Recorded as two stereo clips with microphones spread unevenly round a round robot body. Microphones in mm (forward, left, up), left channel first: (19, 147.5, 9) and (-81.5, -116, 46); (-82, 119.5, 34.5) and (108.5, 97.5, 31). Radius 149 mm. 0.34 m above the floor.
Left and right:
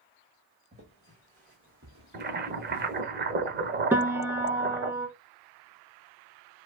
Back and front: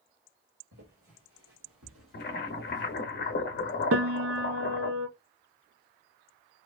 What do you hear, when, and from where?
0.7 s footsteps: 40° right, 1.7 m; by 3.0 s 80° right, 0.7 m
2.1 s boiling: 165° right, 0.7 m
3.9 s a piano: 30° right, 0.7 m